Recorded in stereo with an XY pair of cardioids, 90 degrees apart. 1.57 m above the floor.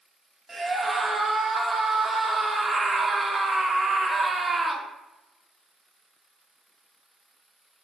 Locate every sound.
0.5 s a scream: 25° right, 0.7 m